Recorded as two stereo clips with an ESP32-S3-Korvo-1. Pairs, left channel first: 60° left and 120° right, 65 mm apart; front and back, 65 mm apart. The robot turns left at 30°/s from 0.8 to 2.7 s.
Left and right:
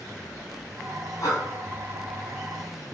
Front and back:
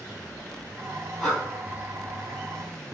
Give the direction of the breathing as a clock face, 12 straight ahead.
9 o'clock.